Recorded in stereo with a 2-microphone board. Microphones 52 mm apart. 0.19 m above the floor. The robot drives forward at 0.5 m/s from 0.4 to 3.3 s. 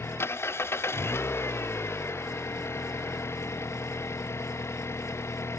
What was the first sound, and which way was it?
An engine running, 55° left (ahead or behind).